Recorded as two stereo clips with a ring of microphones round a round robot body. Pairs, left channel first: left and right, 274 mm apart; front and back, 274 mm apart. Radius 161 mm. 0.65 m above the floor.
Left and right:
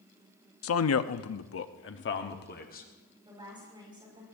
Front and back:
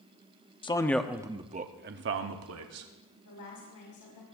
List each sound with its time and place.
0.6 s a man speaking: 70° left, 0.9 m; by 2.9 s 150° left, 1.5 m
3.2 s a woman speaking: 15° right, 5.5 m